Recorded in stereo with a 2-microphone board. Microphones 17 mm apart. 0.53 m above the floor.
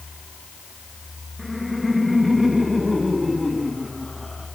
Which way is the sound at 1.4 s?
15° right (ahead or behind).